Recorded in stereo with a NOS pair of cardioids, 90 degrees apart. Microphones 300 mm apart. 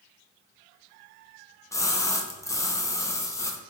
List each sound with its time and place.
1.7 s a splash: 10° left, 0.5 m